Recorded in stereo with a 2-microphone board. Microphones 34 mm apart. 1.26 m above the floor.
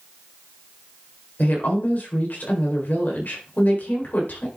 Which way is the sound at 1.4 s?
60° left (ahead or behind).